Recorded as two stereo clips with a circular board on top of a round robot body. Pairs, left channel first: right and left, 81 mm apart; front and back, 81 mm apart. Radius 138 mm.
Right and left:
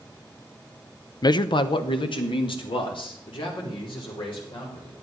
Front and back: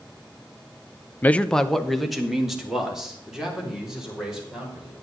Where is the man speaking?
65° right, 0.6 m; by 4.9 s 95° right, 5.5 m.